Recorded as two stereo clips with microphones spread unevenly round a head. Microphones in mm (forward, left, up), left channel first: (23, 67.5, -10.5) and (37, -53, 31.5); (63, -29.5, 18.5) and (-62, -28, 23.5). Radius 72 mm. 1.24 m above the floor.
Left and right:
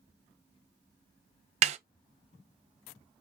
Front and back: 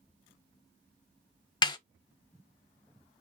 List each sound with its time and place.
1.6 s a snare drum: 55° right, 0.7 m